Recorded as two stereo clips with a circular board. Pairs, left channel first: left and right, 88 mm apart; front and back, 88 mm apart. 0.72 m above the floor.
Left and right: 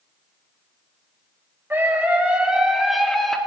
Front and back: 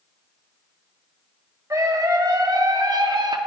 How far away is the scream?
About 1.5 m.